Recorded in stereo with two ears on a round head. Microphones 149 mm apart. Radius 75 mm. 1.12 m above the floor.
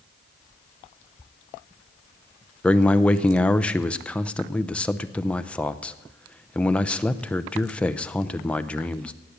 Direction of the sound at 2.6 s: 5° left (ahead or behind).